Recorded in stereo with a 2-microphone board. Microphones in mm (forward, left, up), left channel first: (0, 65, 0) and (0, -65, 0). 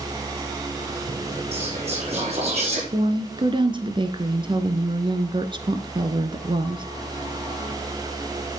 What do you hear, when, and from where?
1.5 s whispering: 50° right (ahead or behind), 5 m
2.9 s a woman speaking: 40° right (ahead or behind), 1.5 m